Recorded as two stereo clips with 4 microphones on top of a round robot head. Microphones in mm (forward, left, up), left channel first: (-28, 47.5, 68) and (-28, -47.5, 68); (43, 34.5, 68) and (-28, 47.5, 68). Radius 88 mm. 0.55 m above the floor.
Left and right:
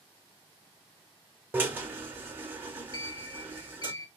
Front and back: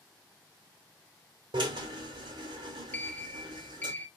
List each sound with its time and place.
1.5 s a drill: 160° right, 0.8 m
2.9 s a sliding door: 55° left, 0.6 m